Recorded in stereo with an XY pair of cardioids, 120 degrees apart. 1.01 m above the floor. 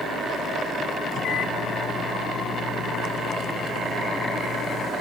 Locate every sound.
1.1 s a microwave: 60° left